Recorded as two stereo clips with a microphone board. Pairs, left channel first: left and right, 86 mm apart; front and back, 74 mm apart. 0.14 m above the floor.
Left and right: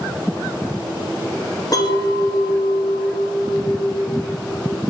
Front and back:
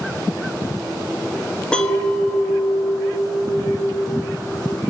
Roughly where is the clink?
Left.